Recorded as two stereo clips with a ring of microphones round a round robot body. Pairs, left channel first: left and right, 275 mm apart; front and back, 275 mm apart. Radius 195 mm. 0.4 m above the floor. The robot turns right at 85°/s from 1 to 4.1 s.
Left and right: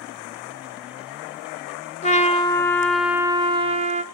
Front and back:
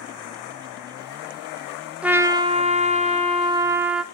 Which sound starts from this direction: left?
A trumpet, at 2.0 s.